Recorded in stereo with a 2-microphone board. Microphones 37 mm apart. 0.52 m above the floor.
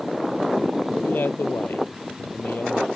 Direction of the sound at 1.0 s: 65° left (ahead or behind).